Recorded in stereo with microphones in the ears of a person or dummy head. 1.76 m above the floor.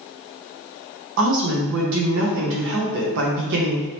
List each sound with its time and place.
1.2 s a woman speaking: 60° right (ahead or behind), 0.7 m